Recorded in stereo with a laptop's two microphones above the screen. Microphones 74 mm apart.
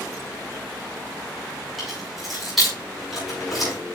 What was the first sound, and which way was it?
Keys jangling, centre (ahead or behind).